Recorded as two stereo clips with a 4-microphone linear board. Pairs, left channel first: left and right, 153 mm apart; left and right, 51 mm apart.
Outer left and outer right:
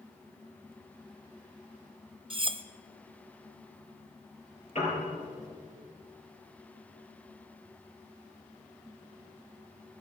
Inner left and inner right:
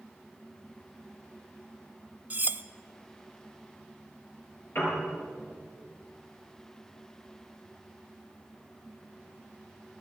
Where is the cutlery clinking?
40° right (ahead or behind), 0.6 m.